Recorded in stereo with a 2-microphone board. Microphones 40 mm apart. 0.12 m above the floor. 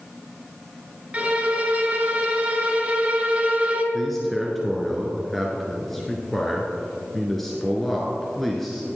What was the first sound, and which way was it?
A violin, 30° right (ahead or behind).